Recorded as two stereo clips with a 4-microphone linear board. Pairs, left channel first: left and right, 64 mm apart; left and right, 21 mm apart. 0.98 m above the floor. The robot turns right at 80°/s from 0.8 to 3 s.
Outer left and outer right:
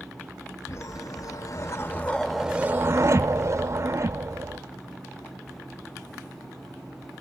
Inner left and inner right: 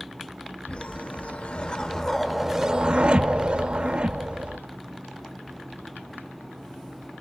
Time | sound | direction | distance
0.7 | a whoosh | 60° left | 0.7 m